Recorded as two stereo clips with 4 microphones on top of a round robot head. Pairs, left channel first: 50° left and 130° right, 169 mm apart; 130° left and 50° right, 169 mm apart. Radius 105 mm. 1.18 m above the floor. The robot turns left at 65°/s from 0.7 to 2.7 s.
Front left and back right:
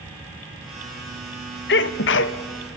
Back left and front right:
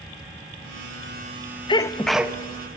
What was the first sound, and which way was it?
A sneeze, 70° left.